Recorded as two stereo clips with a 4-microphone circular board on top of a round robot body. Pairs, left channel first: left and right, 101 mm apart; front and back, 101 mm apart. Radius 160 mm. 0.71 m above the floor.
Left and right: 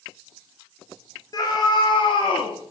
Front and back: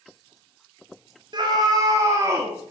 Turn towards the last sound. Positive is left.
turn(degrees=110)